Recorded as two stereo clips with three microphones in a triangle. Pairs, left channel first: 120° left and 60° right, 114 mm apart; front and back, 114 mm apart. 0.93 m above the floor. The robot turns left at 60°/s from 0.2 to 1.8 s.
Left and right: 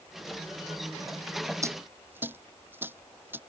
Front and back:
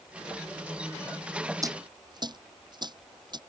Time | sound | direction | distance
1.6 | a dropped coin | 120° right | ?